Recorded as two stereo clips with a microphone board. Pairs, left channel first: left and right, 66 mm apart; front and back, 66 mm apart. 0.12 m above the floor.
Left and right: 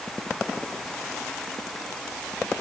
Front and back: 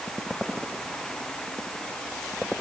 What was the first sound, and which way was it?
Only background noise.